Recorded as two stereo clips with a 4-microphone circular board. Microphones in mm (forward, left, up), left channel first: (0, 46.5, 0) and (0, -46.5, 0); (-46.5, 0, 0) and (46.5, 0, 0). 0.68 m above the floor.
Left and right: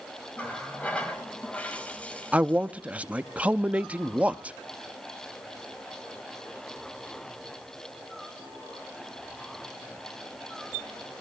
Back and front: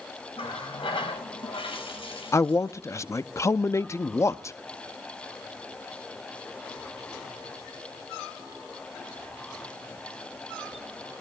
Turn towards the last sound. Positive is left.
turn(degrees=-155)